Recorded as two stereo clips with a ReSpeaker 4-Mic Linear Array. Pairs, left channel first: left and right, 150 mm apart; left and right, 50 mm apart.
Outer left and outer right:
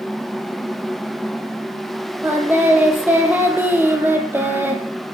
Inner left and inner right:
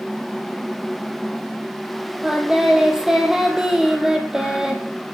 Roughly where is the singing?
Centre.